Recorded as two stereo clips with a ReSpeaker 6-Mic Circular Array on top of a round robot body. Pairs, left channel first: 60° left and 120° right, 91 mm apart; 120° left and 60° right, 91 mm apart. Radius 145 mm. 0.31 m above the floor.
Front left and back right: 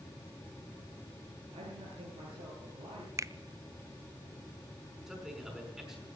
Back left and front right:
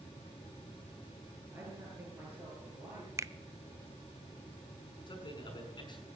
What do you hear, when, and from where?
1.5 s a man speaking: 125° right, 8 m; by 3.1 s 130° right, 8.5 m
3.2 s a finger snap: 90° right, 0.7 m
5.1 s a man speaking: 155° left, 5.5 m